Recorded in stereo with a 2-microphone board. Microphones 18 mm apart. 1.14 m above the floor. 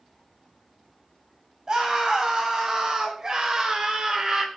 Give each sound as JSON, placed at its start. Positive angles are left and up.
{"t": 1.7, "sound": "a scream", "side_deg": -40, "distance_m": 9.0}